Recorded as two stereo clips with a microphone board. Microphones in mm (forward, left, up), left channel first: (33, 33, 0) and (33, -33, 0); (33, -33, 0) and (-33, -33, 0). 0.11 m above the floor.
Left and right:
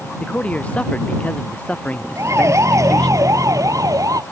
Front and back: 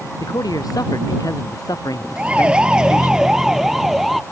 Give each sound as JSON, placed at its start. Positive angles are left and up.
{"t": 0.2, "sound": "a man speaking", "azimuth_deg": 20}
{"t": 2.2, "sound": "a siren", "azimuth_deg": -115}